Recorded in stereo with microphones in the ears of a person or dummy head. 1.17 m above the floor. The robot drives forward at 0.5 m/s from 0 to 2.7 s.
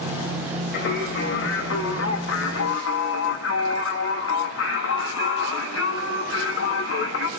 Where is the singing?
65° left (ahead or behind), 1.7 m; by 7.3 s 75° left (ahead or behind), 1.6 m.